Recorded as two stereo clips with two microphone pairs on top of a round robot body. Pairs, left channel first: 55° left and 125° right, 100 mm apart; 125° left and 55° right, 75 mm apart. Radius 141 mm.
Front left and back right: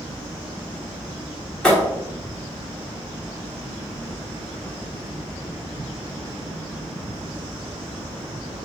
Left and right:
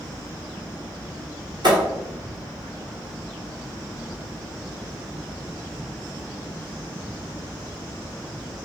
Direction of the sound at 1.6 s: 20° right.